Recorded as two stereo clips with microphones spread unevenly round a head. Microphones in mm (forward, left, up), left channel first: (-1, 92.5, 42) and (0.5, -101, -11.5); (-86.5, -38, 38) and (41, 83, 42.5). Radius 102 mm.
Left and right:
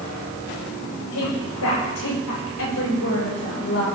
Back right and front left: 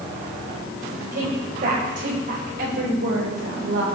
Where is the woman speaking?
85° left, 9 m; by 3.9 s 65° left, 7 m.